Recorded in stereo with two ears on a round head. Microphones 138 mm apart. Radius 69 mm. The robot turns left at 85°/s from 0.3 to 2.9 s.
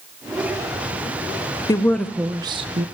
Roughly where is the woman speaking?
Ahead left.